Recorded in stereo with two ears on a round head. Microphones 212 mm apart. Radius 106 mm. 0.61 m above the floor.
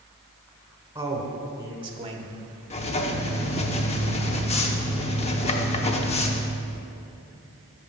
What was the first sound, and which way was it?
A man speaking, 15° right (ahead or behind).